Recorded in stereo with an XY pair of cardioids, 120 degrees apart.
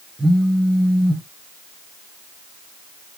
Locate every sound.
0.2 s a phone buzzing: 15° right, 0.6 m